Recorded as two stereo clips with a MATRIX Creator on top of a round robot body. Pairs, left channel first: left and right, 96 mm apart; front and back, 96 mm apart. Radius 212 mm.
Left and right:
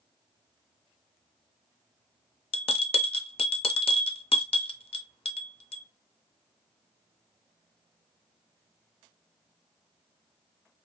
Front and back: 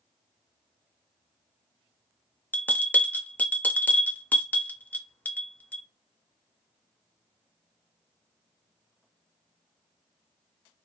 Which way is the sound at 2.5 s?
75° left.